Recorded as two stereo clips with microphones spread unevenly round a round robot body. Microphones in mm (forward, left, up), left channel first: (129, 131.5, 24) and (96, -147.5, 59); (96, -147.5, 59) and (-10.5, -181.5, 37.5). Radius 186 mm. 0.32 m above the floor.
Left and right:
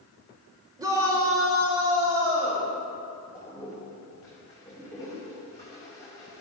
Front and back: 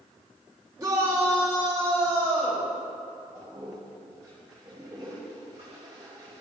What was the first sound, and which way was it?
A shout, 175° right.